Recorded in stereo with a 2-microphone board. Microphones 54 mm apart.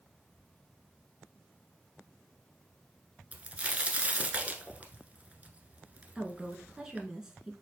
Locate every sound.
3.3 s a crack: 25° right (ahead or behind), 0.9 m
6.2 s a woman speaking: 15° right (ahead or behind), 1.1 m